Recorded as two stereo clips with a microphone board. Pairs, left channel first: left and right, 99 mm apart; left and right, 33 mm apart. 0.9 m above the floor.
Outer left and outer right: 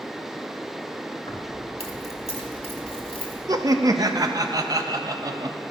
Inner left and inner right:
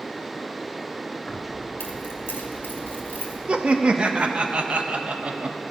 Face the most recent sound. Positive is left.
turn(degrees=-35)  # may be behind; listen again after turning